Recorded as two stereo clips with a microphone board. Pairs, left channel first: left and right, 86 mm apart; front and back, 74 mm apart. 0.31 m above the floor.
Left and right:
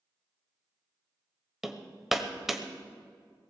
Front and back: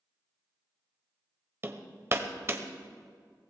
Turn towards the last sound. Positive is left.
turn(degrees=-175)